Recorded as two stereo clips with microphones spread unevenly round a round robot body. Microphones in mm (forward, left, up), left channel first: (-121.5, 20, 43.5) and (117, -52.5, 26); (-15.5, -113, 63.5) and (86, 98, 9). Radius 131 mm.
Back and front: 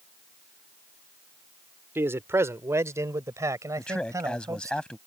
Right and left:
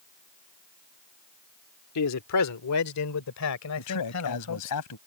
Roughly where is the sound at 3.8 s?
Right.